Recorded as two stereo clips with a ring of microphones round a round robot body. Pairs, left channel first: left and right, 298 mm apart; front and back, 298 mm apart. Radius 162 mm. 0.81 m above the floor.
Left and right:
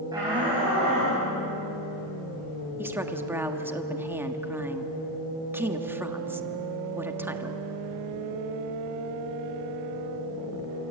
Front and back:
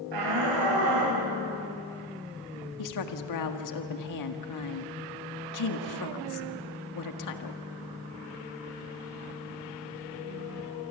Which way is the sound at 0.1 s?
170° right.